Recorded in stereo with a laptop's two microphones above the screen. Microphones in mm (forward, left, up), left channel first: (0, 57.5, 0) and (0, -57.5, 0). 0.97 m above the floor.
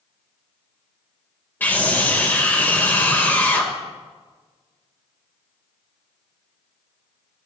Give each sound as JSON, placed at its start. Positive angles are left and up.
{"t": 1.6, "sound": "a scream", "side_deg": 15, "distance_m": 3.0}